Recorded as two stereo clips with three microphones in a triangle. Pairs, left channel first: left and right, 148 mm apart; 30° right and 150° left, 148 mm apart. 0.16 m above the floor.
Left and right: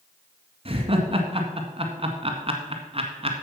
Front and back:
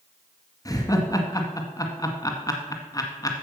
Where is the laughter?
80° right, 1.7 m.